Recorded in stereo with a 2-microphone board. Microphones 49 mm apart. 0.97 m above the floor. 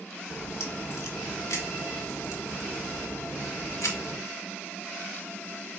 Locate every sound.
0.3 s a crack: 85° left, 1.2 m